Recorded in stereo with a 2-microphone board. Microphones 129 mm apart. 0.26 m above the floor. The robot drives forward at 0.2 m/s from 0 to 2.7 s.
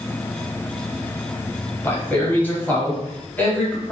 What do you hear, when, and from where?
1.8 s a man speaking: 15° left (ahead or behind), 1.0 m